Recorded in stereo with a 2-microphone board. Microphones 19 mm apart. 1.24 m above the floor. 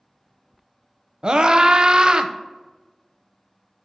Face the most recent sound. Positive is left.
turn(degrees=-45)  # may be behind; listen again after turning